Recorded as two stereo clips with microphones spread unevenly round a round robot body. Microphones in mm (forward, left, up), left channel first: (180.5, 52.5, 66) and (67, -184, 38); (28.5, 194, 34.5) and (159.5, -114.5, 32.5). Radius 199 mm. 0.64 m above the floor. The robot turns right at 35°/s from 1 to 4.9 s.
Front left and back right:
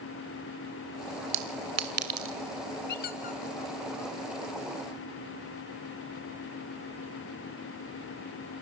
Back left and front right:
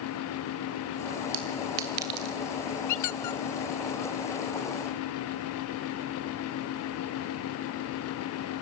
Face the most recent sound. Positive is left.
turn(degrees=-175)